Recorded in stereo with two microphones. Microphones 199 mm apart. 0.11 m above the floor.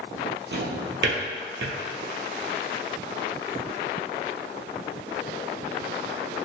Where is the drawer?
70° right (ahead or behind), 0.8 m.